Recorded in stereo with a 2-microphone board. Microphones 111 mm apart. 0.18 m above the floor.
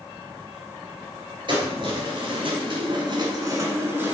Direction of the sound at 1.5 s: 45° right (ahead or behind).